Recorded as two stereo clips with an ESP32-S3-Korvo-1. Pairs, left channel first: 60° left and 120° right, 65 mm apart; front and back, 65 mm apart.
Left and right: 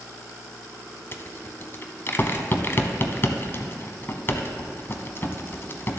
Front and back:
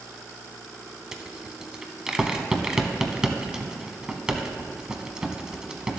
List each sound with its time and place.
1.1 s a rattle: 105° left, 0.8 m